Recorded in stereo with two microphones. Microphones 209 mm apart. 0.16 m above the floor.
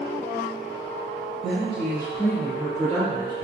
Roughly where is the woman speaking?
Right.